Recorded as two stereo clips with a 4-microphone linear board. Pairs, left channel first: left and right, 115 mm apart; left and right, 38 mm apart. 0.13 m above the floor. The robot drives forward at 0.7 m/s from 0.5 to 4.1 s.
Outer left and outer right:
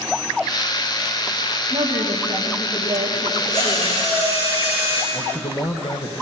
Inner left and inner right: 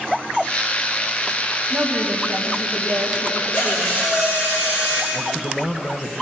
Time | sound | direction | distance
1.7 | a woman speaking | 40° right (ahead or behind) | 6.5 m
3.5 | a drill | 40° left (ahead or behind) | 7.5 m
5.1 | a man speaking | 40° left (ahead or behind) | 2 m